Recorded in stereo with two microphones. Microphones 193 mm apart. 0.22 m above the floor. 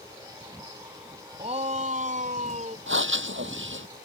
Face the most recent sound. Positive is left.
turn(degrees=-70)  # may be behind; listen again after turning